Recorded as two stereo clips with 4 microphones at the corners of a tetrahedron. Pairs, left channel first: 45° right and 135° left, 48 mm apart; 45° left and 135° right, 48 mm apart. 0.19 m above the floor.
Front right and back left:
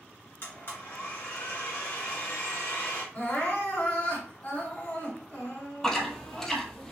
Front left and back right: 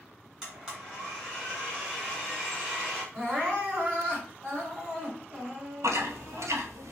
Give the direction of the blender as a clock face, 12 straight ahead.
2 o'clock.